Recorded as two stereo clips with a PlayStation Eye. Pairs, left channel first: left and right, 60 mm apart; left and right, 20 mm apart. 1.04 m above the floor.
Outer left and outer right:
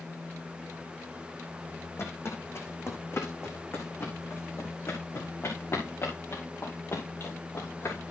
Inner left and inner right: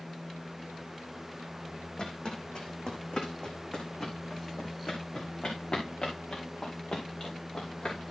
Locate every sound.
2.0 s footsteps: 45° left (ahead or behind), 3.5 m; by 8.1 s 50° left (ahead or behind), 7.5 m